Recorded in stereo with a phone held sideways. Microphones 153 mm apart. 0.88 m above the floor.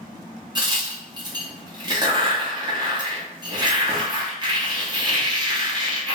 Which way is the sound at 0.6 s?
30° right (ahead or behind).